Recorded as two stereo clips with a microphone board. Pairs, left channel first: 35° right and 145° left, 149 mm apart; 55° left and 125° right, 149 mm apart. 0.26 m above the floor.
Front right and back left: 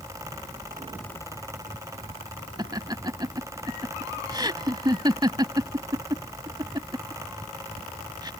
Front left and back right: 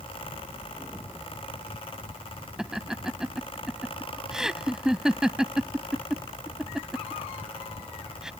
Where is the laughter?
155° left.